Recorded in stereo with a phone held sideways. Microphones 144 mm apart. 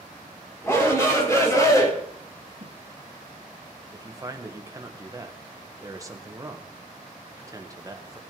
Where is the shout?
20° left (ahead or behind), 3.5 m; by 1.9 s 25° left (ahead or behind), 2.5 m.